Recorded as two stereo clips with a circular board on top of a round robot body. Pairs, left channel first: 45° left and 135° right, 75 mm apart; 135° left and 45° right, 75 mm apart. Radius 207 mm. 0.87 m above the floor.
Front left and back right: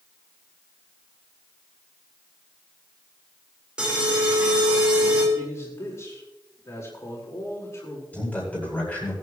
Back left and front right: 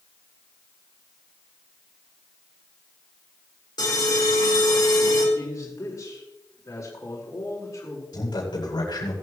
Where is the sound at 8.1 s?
115° left, 8.5 m.